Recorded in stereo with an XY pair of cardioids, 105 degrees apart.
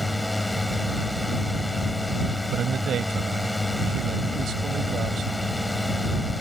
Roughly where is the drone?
Ahead.